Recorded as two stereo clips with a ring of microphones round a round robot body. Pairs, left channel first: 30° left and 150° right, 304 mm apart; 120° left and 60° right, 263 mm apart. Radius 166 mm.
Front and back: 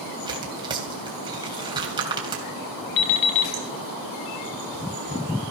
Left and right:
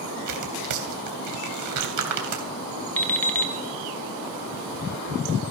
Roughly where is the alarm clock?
Ahead left.